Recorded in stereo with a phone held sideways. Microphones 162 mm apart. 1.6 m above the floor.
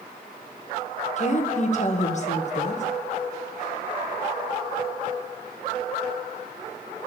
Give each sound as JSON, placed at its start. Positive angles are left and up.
{"t": 1.2, "sound": "a woman speaking", "side_deg": 45, "distance_m": 1.5}